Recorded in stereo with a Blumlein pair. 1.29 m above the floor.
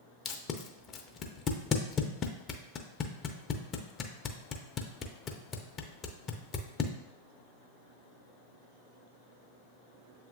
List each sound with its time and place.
0.2 s tape being pulled: 25° left, 0.5 m